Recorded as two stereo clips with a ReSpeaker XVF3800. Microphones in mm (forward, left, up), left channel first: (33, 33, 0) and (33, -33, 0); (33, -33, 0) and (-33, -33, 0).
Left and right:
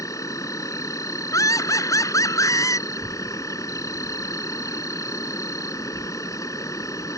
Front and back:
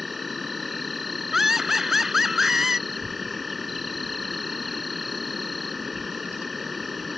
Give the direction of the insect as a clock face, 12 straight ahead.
9 o'clock.